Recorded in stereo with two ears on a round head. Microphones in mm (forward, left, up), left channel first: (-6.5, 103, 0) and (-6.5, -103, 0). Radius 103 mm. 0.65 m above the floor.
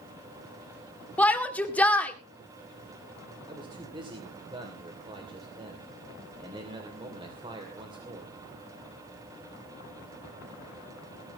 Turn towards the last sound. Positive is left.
turn(degrees=-20)  # may be behind; listen again after turning